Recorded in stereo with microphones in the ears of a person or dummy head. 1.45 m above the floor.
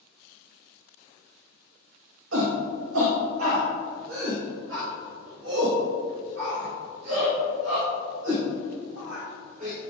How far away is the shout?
About 2 m.